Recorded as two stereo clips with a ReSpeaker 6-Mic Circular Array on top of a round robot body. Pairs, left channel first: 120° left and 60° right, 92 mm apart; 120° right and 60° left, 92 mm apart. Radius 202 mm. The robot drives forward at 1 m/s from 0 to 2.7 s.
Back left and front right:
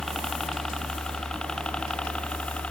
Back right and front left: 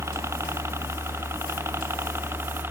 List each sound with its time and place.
0.0 s a helicopter: 35° left; by 2.7 s 60° left